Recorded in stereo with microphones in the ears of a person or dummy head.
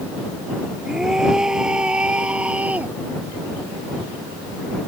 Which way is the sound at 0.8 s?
5° right (ahead or behind).